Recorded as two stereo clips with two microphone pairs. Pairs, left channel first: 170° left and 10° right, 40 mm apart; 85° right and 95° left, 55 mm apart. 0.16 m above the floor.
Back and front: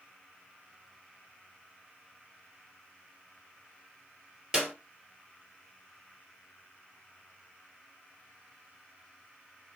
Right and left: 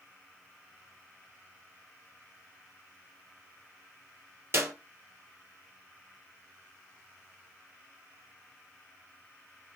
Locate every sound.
4.5 s a clap: 60° left, 4 m